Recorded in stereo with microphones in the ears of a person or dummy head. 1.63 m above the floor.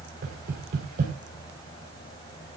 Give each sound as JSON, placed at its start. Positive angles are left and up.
{"t": 0.2, "sound": "knocking", "side_deg": -50, "distance_m": 4.5}